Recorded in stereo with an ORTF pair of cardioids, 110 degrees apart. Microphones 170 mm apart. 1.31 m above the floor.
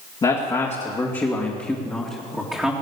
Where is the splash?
I don't hear a splash.